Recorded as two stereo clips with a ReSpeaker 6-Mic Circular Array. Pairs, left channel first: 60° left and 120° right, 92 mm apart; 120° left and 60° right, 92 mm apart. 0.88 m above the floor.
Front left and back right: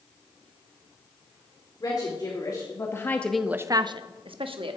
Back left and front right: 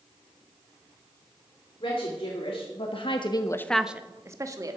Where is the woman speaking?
100° left, 2.5 m; by 4.8 s 105° right, 1.6 m.